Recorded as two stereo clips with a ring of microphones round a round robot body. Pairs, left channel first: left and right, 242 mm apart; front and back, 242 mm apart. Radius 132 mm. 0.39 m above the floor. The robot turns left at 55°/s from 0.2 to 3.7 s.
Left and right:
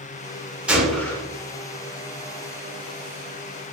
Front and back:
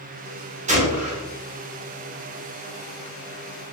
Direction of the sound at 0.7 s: 170° right.